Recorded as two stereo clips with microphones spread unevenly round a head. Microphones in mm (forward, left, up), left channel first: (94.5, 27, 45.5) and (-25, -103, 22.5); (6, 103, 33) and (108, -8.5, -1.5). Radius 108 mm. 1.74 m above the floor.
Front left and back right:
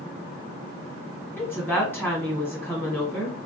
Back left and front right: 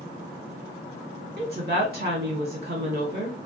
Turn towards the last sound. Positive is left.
turn(degrees=-30)